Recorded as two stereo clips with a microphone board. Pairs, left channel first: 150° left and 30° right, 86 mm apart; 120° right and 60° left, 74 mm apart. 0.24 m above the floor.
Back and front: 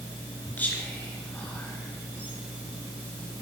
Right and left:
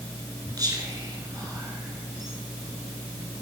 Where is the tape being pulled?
No tape being pulled in this recording.